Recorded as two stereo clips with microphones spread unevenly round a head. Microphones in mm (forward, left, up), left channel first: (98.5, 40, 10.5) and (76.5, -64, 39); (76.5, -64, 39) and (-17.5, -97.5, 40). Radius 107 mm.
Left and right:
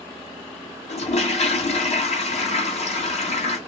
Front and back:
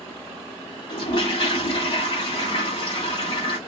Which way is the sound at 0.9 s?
75° left.